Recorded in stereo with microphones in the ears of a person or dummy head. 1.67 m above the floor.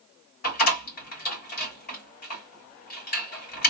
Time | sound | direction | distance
0.4 | a door slam | 50° left (ahead or behind) | 1.9 m